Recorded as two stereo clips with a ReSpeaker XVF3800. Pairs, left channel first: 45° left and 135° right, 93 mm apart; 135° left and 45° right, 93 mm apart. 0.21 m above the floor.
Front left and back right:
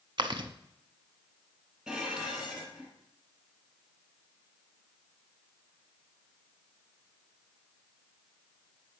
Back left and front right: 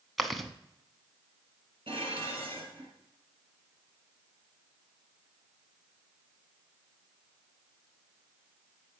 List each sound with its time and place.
0.2 s chewing: 135° right, 0.7 m
1.9 s dishes clattering: 55° right, 3 m